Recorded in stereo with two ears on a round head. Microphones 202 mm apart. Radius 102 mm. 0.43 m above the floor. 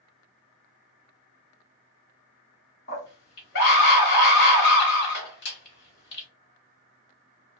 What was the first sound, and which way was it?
A scream, 50° left (ahead or behind).